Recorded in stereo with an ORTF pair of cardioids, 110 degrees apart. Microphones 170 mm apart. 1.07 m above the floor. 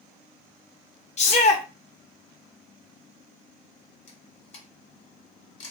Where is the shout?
40° left, 0.9 m.